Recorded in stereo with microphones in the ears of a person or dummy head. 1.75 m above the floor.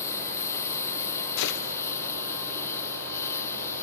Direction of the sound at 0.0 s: 15° left (ahead or behind).